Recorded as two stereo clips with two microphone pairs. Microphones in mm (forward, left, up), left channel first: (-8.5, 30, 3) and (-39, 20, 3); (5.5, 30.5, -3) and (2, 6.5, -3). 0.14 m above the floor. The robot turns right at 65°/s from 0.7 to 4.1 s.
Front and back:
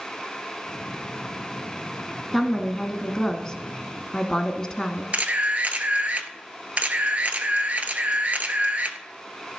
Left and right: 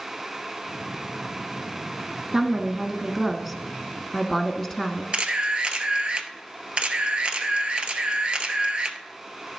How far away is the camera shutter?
About 0.9 m.